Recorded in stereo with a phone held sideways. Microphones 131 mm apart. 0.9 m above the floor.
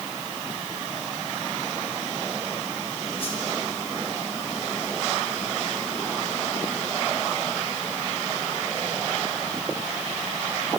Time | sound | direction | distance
3.2 | a whoosh | 45° left (ahead or behind) | 4.5 m